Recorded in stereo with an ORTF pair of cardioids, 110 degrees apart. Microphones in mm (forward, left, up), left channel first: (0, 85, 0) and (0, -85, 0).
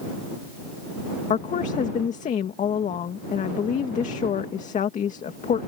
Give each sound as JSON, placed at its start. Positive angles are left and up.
{"t": 1.3, "sound": "a woman speaking", "azimuth_deg": 45}